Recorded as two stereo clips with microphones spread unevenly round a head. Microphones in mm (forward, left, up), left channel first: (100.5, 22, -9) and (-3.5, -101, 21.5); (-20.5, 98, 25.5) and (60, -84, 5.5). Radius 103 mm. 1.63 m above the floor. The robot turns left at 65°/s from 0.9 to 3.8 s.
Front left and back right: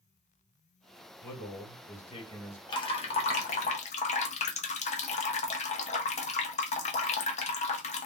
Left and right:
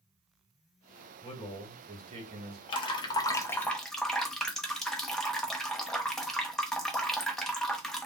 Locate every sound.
1.2 s a man speaking: 60° left, 1.4 m; by 2.6 s 30° right, 1.4 m
2.7 s dripping: 115° left, 0.6 m; by 8.1 s 40° left, 0.6 m